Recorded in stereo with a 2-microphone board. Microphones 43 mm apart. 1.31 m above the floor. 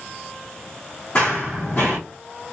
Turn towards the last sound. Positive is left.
turn(degrees=35)  # may be behind; listen again after turning